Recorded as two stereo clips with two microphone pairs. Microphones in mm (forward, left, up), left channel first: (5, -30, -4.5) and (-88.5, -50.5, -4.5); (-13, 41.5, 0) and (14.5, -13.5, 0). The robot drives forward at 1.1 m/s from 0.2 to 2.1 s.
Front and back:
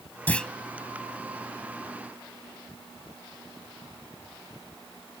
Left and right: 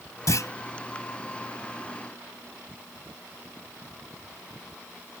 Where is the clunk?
85° left; by 0.5 s 100° left.